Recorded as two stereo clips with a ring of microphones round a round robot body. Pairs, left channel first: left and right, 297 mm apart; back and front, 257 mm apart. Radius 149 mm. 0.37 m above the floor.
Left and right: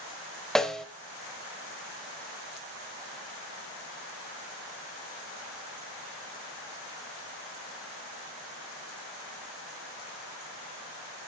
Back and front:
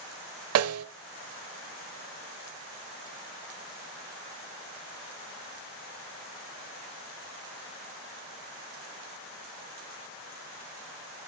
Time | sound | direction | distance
0.6 | a snare drum | straight ahead | 1.0 m